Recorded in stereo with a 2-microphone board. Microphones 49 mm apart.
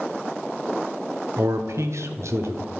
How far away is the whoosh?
No whoosh in this recording.